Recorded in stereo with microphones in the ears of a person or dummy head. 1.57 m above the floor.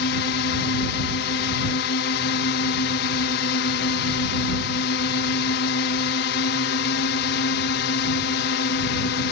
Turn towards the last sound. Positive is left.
turn(degrees=55)  # may be behind; listen again after turning